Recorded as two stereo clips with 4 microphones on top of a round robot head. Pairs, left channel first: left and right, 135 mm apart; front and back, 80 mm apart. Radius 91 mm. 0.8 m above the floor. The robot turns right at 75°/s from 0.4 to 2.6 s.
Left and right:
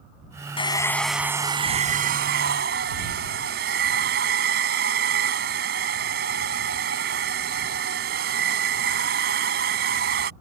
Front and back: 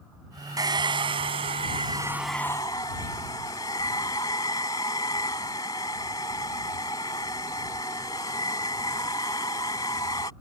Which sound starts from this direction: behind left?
A hair dryer, at 0.6 s.